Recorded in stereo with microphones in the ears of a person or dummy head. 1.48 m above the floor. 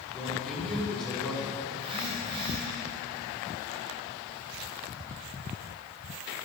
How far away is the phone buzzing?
About 3.5 m.